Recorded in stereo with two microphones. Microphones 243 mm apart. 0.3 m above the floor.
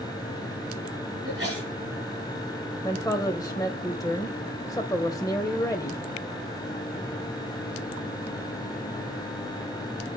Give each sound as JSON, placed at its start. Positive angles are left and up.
{"t": 1.2, "sound": "a sneeze", "side_deg": -45, "distance_m": 4.5}
{"t": 2.8, "sound": "a woman speaking", "side_deg": 15, "distance_m": 1.0}